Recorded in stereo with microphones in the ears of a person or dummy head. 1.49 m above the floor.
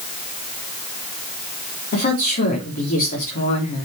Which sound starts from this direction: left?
A woman speaking, at 1.9 s.